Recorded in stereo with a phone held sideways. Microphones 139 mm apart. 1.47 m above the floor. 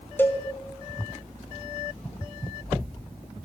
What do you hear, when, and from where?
0.2 s a cowbell: 15° left (ahead or behind), 0.6 m